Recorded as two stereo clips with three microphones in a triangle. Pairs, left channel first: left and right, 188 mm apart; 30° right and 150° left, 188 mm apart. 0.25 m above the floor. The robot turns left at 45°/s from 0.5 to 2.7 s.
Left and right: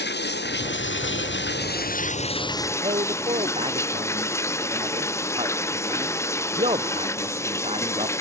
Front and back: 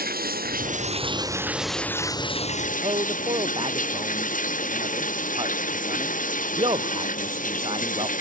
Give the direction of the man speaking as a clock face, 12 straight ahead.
5 o'clock.